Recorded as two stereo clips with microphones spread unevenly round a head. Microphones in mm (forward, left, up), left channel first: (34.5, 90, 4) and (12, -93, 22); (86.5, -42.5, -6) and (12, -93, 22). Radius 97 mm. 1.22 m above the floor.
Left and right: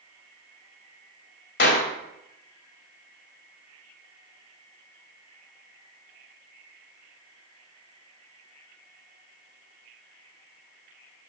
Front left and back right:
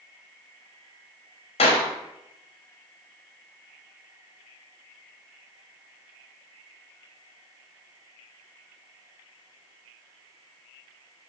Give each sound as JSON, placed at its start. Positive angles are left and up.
{"t": 1.6, "sound": "a clap", "azimuth_deg": 55, "distance_m": 3.0}